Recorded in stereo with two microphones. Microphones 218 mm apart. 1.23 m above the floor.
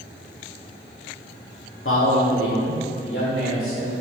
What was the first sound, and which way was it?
A man speaking, 70° left (ahead or behind).